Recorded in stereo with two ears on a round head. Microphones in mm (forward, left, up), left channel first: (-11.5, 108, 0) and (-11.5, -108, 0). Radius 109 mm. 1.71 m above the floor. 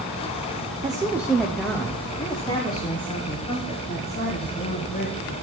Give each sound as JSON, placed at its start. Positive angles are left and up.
{"t": 0.8, "sound": "a woman speaking", "side_deg": -20, "distance_m": 0.7}